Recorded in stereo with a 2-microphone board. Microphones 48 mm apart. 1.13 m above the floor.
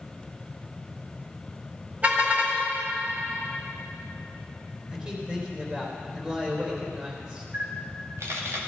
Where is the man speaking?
25° right (ahead or behind), 3.5 m.